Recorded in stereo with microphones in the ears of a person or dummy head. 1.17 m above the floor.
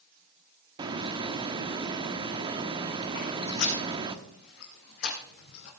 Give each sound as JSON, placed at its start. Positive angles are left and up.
{"t": 0.8, "sound": "a hiss", "side_deg": -25, "distance_m": 1.1}
{"t": 3.1, "sound": "footsteps", "side_deg": 60, "distance_m": 4.0}